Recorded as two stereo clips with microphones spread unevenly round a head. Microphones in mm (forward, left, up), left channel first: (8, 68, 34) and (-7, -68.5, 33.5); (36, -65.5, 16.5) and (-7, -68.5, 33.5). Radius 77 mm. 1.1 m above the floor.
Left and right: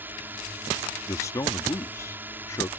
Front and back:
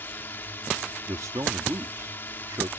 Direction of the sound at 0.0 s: 20° right.